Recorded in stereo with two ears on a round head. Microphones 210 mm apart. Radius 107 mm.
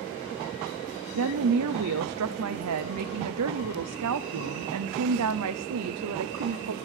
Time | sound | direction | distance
1.1 | a woman speaking | 70° right (ahead or behind) | 0.5 m